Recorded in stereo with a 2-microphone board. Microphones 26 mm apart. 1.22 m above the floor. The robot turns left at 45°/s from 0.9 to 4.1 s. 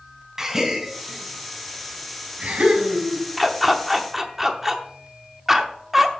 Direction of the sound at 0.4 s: 25° right (ahead or behind).